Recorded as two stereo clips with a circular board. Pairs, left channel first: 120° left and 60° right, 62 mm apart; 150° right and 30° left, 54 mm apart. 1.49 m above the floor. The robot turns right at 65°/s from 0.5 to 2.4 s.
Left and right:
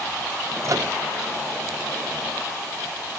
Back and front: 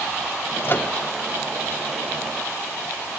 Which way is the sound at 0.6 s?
100° right.